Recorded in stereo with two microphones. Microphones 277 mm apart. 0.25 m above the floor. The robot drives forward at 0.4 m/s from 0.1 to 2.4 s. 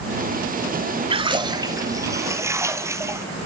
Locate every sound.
1.1 s a splash: 20° right (ahead or behind), 0.5 m; by 3.2 s 10° right (ahead or behind), 1.0 m